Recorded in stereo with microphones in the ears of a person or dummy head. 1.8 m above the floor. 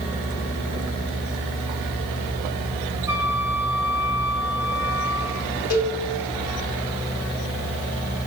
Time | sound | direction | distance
3.1 | a flute | 10° right (ahead or behind) | 2.5 m
5.7 | a cowbell | 45° left (ahead or behind) | 5 m